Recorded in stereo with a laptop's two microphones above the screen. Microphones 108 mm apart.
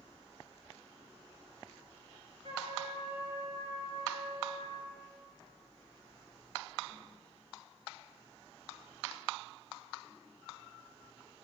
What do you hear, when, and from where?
2.4 s a trumpet: 85° right, 9.5 m